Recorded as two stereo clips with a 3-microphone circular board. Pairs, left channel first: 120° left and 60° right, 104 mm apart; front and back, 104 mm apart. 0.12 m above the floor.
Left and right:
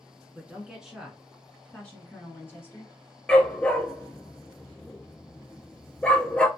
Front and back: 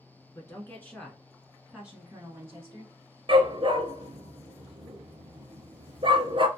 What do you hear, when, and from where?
0.3 s a woman speaking: 5° left, 1.3 m; by 2.9 s 165° left, 1.4 m
3.3 s a dog barking: 160° right, 0.6 m